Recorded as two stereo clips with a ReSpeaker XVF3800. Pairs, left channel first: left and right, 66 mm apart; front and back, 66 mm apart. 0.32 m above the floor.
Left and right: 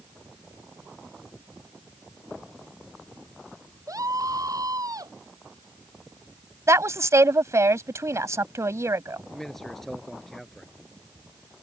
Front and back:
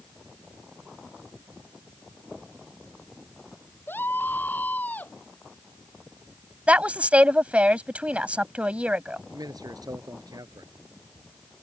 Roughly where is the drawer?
I don't hear a drawer.